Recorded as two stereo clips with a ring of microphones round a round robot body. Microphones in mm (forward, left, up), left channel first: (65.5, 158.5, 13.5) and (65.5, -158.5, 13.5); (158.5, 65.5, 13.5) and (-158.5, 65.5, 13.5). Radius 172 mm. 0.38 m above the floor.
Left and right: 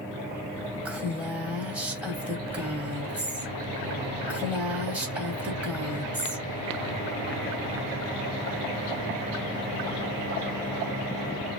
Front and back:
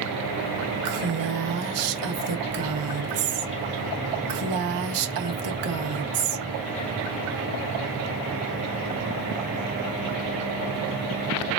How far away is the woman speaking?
About 1.7 m.